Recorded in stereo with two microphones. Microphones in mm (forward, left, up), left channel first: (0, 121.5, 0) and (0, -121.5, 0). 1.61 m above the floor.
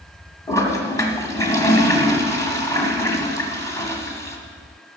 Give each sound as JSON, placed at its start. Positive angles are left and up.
{"t": 0.5, "sound": "a toilet flushing", "side_deg": 10, "distance_m": 1.8}